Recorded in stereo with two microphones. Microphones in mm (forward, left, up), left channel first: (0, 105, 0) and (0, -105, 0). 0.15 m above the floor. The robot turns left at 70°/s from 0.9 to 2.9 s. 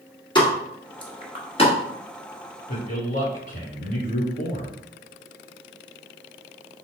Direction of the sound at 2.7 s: 40° left (ahead or behind).